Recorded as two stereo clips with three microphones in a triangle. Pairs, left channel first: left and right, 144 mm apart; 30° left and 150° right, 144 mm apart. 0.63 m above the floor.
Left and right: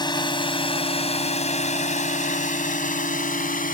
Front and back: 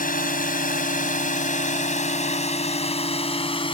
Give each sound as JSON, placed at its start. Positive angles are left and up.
{"t": 0.0, "sound": "a drone", "azimuth_deg": 30}